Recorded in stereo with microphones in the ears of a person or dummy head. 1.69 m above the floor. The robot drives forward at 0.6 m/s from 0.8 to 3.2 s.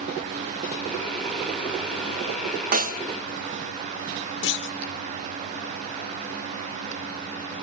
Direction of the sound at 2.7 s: 45° right (ahead or behind).